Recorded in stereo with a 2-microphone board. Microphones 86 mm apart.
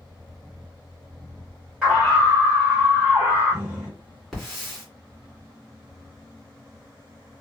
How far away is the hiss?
About 1.7 m.